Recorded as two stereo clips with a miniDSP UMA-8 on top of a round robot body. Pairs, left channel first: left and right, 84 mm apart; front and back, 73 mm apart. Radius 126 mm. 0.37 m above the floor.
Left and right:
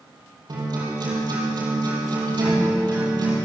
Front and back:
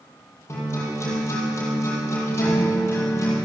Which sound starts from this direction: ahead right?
A guitar, at 0.5 s.